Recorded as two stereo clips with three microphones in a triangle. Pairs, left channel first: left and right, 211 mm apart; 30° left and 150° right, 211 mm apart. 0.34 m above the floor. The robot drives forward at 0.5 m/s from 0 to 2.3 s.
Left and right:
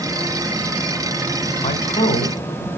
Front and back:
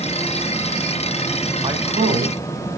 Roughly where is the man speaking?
Behind left.